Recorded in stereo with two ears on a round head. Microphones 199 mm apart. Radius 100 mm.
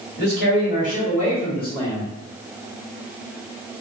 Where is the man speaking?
50° left (ahead or behind), 1.7 m; by 2.1 s 15° left (ahead or behind), 1.4 m.